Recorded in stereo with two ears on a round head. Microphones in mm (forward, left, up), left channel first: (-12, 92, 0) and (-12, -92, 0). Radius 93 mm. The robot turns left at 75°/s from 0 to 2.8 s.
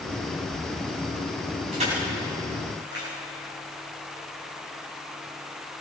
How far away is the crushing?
About 9 m.